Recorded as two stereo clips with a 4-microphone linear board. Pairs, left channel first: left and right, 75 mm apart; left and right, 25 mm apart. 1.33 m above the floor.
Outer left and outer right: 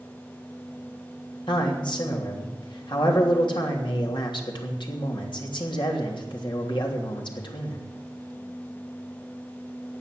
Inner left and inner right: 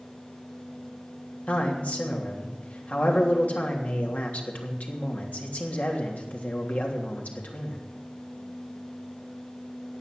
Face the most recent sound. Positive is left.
turn(degrees=80)